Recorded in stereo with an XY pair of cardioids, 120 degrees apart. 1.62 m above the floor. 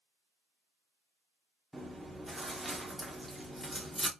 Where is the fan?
I don't hear a fan.